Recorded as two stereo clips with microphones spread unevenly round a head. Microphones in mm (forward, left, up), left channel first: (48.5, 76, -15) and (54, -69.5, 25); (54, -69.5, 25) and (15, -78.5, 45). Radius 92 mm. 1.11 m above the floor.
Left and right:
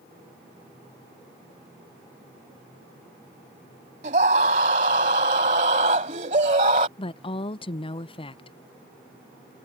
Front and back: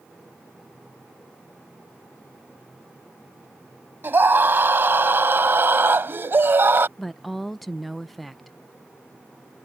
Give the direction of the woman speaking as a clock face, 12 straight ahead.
9 o'clock.